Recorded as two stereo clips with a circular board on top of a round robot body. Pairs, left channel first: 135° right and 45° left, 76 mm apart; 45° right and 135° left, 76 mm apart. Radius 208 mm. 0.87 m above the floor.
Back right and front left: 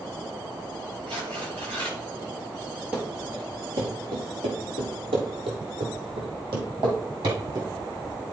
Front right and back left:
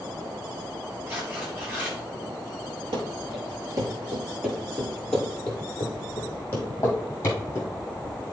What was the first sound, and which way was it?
Tearing paper, 65° left.